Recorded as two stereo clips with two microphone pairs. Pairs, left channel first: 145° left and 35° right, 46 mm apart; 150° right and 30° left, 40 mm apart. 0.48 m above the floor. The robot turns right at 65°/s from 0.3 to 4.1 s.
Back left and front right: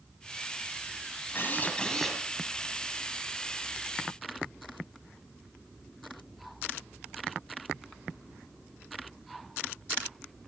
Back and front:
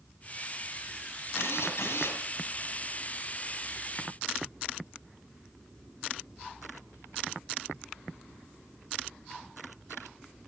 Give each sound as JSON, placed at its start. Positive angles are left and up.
{"t": 1.4, "sound": "a drill", "azimuth_deg": -175, "distance_m": 6.5}